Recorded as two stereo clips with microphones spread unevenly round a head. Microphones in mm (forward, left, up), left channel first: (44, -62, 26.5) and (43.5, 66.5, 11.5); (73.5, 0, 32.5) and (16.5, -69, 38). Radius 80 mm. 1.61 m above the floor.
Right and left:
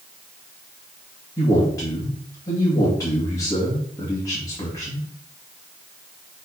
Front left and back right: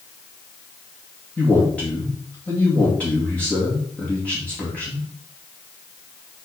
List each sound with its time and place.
1.4 s a man speaking: 25° right, 2.5 m